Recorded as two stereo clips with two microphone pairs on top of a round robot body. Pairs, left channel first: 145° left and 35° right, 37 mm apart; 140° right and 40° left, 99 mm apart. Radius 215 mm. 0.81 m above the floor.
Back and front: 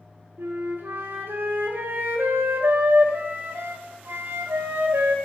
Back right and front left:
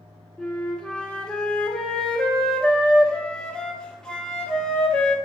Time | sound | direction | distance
0.4 | a flute | 60° right | 1.0 m